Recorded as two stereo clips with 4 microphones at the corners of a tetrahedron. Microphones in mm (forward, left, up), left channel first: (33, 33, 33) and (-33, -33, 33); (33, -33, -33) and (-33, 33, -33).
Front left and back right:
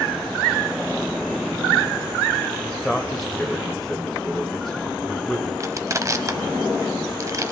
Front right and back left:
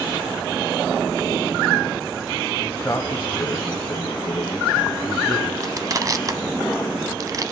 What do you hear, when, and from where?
2.6 s a man speaking: 35° right, 1.0 m
5.6 s crushing: 175° left, 0.7 m